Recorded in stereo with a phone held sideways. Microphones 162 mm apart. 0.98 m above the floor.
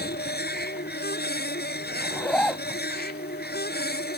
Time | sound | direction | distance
0.0 | a machine running | 85° left | ?
2.0 | a zipper | 10° left (ahead or behind) | ?